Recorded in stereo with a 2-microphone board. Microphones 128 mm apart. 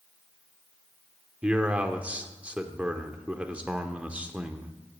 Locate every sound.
1.4 s a man speaking: 10° right (ahead or behind), 0.9 m